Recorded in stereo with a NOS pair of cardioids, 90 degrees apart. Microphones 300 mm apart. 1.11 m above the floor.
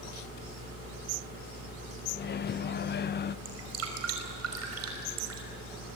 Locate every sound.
2.1 s a microwave: 35° left, 0.5 m
3.5 s dripping: 55° right, 5.5 m